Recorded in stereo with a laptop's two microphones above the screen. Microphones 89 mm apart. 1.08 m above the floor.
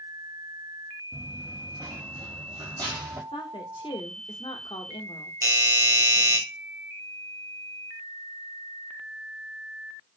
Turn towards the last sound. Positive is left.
turn(degrees=-40)  # may be behind; listen again after turning